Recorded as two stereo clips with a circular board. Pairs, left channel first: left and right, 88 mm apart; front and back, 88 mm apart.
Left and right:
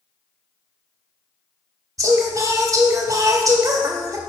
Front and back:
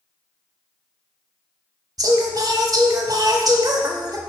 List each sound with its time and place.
2.0 s singing: 140° right, 1.0 m